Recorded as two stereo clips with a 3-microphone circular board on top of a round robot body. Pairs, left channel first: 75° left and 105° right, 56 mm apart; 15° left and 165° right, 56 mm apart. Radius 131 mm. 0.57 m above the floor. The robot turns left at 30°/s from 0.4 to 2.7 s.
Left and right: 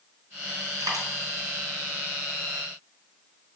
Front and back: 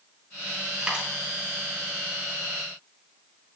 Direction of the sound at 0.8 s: 85° right.